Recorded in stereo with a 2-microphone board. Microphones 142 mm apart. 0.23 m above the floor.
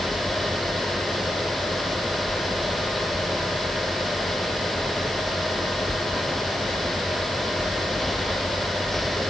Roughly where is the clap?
No clap in this recording.